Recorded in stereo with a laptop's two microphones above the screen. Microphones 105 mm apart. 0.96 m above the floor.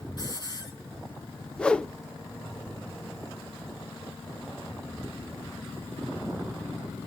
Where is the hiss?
45° left (ahead or behind), 5.5 m.